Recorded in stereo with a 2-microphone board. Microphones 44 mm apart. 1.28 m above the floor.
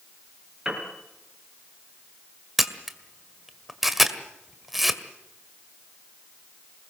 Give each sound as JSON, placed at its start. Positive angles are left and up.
{"t": 0.7, "sound": "a piano", "side_deg": -15, "distance_m": 5.0}
{"t": 2.6, "sound": "a camera shutter", "side_deg": -5, "distance_m": 1.8}